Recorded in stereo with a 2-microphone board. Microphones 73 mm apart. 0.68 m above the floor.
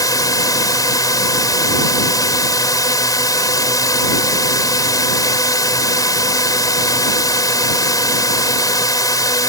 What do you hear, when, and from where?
0.0 s a drone: 55° left (ahead or behind)